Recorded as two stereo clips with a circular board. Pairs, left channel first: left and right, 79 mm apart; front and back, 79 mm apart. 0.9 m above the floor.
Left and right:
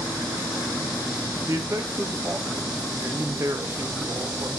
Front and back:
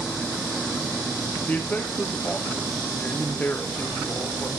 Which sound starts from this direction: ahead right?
A man speaking, at 1.5 s.